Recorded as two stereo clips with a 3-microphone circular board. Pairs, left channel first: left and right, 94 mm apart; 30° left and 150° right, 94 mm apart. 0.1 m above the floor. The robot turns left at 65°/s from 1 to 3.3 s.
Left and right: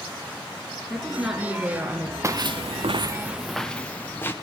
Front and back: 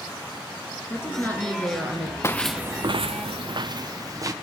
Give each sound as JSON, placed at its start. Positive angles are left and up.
{"t": 0.9, "sound": "a woman speaking", "azimuth_deg": 5, "distance_m": 1.4}
{"t": 2.2, "sound": "footsteps", "azimuth_deg": -30, "distance_m": 0.6}